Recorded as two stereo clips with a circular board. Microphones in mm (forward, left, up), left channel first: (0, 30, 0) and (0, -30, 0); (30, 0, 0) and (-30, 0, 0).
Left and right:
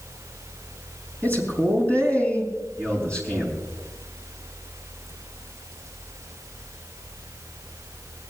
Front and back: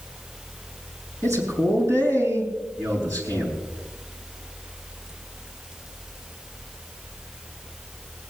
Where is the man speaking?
150° left, 7.5 m; by 3.5 s 165° left, 7.5 m.